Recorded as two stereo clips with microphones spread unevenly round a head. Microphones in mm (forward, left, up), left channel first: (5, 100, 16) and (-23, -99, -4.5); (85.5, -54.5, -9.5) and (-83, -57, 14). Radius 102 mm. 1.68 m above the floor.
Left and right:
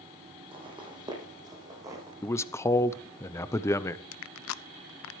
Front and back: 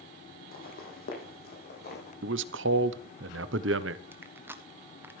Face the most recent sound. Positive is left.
turn(degrees=100)